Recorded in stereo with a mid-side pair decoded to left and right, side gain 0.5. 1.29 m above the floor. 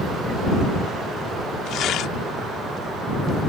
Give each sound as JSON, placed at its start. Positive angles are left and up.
{"t": 1.7, "sound": "tearing paper", "azimuth_deg": 70}